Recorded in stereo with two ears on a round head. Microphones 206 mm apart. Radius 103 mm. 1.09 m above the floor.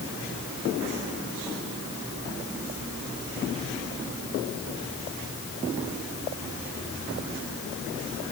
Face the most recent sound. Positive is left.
No sound to turn to.